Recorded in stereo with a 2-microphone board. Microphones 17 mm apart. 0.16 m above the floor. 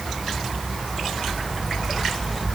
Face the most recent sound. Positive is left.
No sound to turn to.